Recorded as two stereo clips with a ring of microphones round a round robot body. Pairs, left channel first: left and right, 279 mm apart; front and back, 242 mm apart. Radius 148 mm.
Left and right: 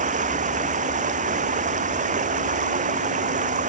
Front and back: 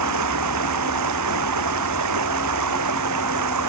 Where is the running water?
155° right.